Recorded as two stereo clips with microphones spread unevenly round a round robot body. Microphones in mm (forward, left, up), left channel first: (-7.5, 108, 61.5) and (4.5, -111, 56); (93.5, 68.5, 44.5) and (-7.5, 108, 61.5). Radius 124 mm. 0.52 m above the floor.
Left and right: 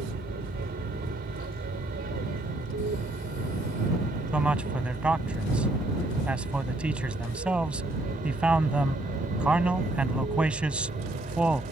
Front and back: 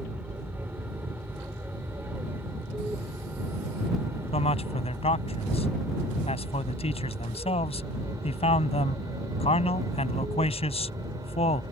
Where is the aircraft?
125° right; by 11.7 s 135° right.